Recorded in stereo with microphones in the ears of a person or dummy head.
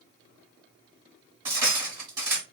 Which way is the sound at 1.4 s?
15° right (ahead or behind).